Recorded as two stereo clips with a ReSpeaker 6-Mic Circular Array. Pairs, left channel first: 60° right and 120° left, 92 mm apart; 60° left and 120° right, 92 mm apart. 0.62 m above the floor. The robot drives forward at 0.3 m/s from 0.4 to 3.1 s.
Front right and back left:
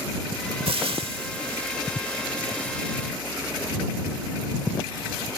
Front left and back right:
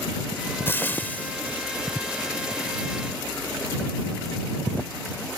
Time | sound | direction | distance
0.7 | frying | 125° left | ?